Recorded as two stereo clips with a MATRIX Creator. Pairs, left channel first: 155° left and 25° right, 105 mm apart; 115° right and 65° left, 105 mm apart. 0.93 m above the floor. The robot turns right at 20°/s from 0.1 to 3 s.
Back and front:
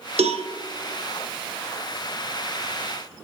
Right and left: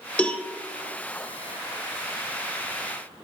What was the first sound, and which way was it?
A cowbell, 35° right.